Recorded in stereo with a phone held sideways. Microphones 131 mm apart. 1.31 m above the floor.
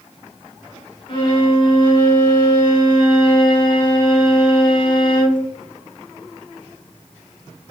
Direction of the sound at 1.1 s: 40° left (ahead or behind).